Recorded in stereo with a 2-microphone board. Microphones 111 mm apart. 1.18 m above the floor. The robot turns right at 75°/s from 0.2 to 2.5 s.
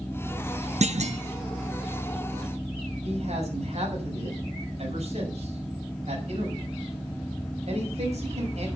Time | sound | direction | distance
0.8 | a clunk | 100° right | 1.2 m
3.0 | a man speaking | 70° right (ahead or behind) | 6 m